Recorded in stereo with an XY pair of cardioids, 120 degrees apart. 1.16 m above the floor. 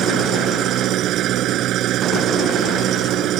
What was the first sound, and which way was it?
An engine running, 65° right.